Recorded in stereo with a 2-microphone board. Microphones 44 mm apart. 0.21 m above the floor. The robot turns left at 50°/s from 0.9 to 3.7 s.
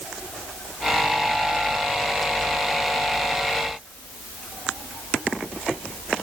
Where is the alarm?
I don't hear an alarm.